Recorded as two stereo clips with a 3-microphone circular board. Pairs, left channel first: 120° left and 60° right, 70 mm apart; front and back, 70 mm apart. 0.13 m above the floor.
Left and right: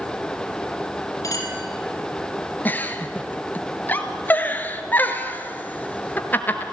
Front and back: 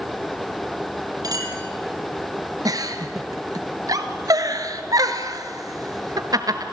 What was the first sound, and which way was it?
A clink, 160° left.